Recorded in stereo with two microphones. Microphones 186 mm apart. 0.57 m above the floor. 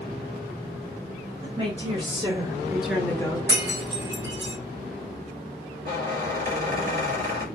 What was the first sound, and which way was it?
A woman speaking, 30° right (ahead or behind).